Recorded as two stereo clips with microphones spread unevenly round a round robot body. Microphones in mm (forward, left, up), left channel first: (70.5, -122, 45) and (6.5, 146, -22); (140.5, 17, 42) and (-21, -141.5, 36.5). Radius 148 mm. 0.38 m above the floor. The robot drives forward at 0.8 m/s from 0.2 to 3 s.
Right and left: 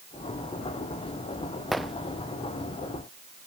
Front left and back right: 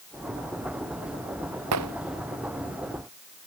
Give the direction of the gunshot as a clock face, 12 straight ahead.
6 o'clock.